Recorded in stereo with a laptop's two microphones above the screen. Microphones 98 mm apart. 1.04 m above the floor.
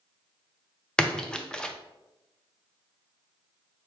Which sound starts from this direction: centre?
A splash, at 1.0 s.